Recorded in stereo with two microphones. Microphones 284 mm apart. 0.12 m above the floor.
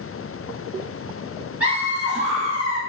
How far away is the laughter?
About 1.6 m.